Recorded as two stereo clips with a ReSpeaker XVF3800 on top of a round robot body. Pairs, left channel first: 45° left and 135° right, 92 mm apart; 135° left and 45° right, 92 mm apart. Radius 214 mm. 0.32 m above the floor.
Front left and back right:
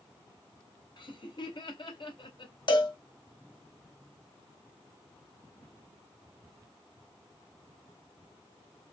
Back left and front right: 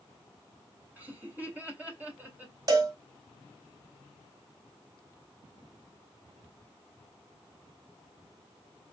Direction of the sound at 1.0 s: 25° left.